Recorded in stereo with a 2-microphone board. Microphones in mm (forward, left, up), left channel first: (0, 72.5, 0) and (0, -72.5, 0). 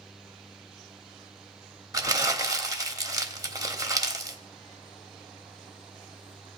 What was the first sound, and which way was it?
Crumpling, 25° right (ahead or behind).